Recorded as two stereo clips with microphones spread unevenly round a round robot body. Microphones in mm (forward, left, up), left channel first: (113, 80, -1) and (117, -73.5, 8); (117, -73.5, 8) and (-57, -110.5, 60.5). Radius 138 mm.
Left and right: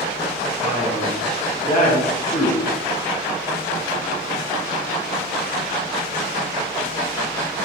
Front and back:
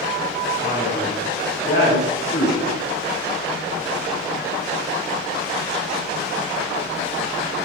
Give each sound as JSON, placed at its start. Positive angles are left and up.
{"t": 0.6, "sound": "a man speaking", "azimuth_deg": 65, "distance_m": 7.5}